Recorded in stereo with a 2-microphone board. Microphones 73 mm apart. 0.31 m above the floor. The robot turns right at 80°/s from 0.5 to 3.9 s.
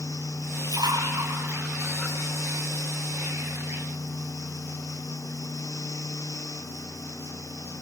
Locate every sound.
0.6 s a splash: 70° right (ahead or behind), 7.5 m; by 2.2 s 15° left (ahead or behind), 7.5 m